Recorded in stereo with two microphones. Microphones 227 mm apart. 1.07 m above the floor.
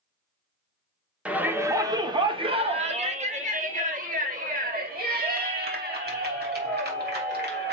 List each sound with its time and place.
1.2 s a shout: 5° right (ahead or behind), 1.3 m; by 7.7 s 50° right (ahead or behind), 4 m